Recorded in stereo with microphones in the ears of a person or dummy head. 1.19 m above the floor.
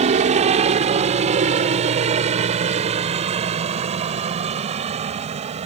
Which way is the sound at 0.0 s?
35° right (ahead or behind).